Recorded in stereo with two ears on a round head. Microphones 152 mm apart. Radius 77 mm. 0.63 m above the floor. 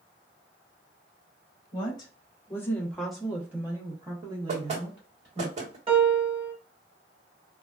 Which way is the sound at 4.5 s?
40° right (ahead or behind).